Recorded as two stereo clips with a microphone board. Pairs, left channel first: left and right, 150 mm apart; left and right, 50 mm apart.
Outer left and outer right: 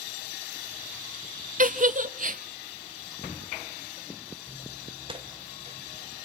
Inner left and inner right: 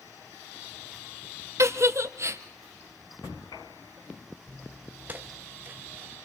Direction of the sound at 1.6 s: 65° right (ahead or behind).